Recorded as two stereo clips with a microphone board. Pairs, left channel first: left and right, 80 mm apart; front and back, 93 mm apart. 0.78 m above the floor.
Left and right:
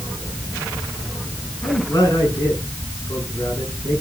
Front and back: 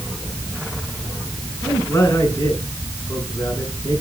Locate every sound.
1.6 s a man speaking: 55° left, 8.5 m